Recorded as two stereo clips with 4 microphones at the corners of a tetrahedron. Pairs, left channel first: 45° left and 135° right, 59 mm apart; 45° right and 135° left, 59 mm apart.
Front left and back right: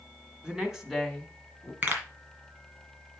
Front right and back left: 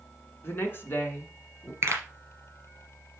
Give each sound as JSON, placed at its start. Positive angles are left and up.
{"t": 0.4, "sound": "a woman speaking", "azimuth_deg": -70, "distance_m": 1.5}
{"t": 1.8, "sound": "a pop", "azimuth_deg": 175, "distance_m": 2.5}